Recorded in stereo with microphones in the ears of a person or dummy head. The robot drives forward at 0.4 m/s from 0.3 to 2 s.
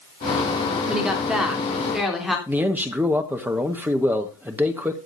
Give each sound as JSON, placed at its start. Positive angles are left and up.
{"t": 0.9, "sound": "a woman speaking", "side_deg": 0, "distance_m": 3.0}
{"t": 2.5, "sound": "a man speaking", "side_deg": -10, "distance_m": 1.4}